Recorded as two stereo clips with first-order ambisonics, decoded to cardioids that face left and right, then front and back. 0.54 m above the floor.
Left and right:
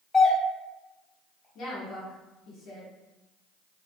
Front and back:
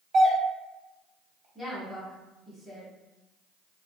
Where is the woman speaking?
75° left, 1.2 m.